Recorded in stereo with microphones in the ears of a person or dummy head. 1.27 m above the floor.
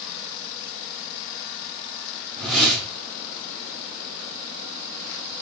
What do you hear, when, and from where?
2.4 s a whoosh: centre (ahead or behind), 3.5 m